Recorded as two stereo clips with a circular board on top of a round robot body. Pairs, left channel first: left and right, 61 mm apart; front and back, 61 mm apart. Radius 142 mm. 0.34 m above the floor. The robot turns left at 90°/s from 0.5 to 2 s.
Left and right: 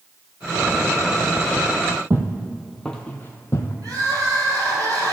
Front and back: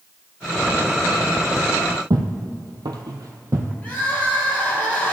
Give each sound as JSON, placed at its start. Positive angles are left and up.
{"t": 2.1, "sound": "footsteps", "azimuth_deg": -150, "distance_m": 0.8}
{"t": 3.8, "sound": "crying", "azimuth_deg": -65, "distance_m": 2.5}